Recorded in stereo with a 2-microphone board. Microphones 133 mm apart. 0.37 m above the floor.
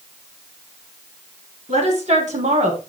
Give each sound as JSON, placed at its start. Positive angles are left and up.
{"t": 1.7, "sound": "a woman speaking", "side_deg": -65, "distance_m": 4.5}